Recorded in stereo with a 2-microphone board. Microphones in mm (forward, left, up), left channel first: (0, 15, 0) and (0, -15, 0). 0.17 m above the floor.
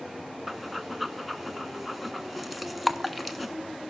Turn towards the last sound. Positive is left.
turn(degrees=-5)  # may be behind; listen again after turning